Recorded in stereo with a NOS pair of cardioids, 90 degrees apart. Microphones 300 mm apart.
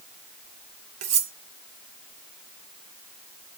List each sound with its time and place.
1.0 s cutlery clinking: 60° right, 1.6 m